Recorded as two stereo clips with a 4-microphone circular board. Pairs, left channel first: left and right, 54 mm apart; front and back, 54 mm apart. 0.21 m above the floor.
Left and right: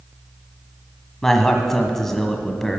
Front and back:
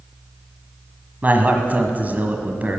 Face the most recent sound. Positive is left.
turn(degrees=165)